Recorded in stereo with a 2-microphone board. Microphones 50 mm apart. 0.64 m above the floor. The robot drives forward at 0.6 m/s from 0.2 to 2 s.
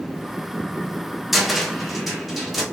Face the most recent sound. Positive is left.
turn(degrees=0)  # may be behind; listen again after turning